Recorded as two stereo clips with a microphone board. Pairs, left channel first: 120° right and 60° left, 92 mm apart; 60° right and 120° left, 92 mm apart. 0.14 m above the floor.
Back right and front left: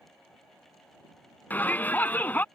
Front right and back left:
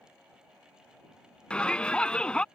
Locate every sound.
1.5 s a shout: 115° right